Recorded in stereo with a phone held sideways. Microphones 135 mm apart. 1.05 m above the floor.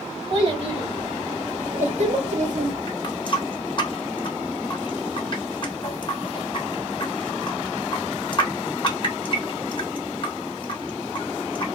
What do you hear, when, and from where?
0.3 s a child speaking: 40° right (ahead or behind), 2.5 m; by 2.8 s 70° right (ahead or behind), 1.8 m
2.9 s a running tap: 35° left (ahead or behind), 1.1 m